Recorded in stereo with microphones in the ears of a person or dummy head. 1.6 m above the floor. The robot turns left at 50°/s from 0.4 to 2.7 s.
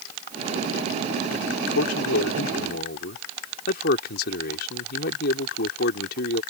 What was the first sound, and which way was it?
A man speaking, 120° left.